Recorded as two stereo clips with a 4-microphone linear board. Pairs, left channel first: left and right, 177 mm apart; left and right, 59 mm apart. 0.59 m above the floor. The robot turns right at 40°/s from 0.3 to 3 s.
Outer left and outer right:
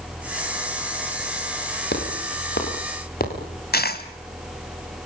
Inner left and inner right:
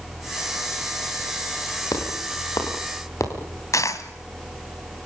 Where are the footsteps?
70° left (ahead or behind), 7 m; by 3.3 s 55° left (ahead or behind), 6.5 m.